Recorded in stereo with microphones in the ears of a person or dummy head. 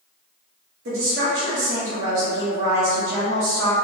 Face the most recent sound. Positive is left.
turn(degrees=-65)  # may be behind; listen again after turning